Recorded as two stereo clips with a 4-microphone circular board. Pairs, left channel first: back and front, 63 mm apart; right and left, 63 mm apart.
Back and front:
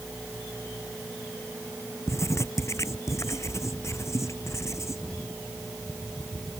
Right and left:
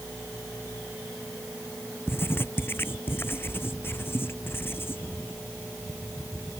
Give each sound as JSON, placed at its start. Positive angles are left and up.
{"t": 2.1, "sound": "writing", "azimuth_deg": -145}